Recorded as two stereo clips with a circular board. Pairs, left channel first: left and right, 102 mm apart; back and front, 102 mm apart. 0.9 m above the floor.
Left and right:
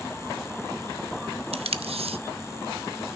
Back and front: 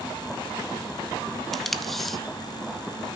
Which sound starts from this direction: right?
Tape being pulled, at 1.5 s.